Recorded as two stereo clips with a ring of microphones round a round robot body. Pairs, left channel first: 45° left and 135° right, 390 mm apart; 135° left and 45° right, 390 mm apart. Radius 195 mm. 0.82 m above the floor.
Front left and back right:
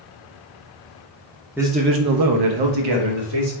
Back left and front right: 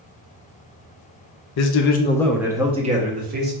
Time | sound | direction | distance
1.6 | a man speaking | 140° left | 0.5 m